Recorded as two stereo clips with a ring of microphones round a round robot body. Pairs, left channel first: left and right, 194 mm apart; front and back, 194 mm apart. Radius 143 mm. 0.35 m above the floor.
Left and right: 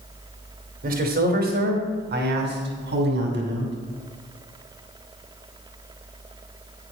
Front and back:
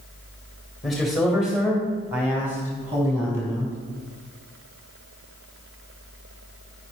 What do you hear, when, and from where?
0.8 s a man speaking: 90° right, 2 m; by 3.7 s 100° right, 4 m